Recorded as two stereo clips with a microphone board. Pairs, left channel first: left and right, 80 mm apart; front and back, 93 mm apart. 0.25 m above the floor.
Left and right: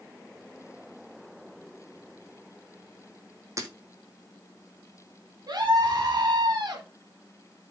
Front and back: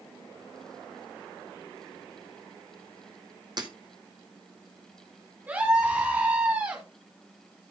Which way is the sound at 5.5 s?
115° right.